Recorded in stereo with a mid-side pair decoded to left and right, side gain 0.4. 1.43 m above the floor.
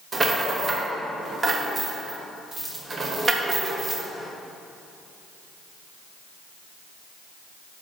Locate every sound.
0.1 s a rattle: 35° right, 1.0 m